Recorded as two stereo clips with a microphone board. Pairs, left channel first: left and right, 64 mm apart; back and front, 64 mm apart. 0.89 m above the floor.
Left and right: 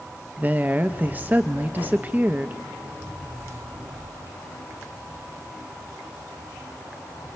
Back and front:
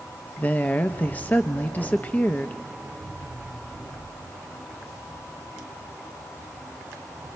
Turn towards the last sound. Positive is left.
turn(degrees=-135)